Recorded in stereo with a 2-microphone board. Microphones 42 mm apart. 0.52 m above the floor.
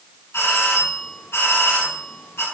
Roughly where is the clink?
I don't hear a clink.